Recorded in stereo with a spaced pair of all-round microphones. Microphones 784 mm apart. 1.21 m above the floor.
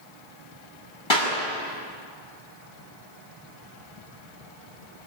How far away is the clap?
About 6.5 m.